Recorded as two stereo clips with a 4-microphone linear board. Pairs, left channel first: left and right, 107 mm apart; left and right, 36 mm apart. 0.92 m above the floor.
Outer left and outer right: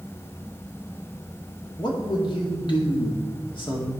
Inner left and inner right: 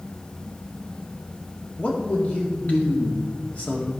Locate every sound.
1.8 s a man speaking: 50° left (ahead or behind), 2 m